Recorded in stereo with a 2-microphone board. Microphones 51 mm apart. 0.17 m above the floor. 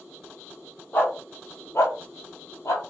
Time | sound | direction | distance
0.9 | a dog barking | 45° left (ahead or behind) | 1.2 m